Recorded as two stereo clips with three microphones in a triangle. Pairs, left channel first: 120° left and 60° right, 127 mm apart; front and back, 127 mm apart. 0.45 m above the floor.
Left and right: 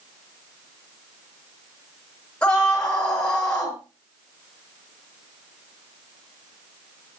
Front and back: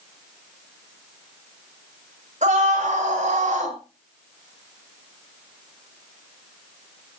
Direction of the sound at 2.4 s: 160° right.